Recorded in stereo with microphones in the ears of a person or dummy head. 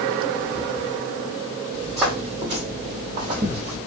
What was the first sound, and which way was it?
Footsteps, centre (ahead or behind).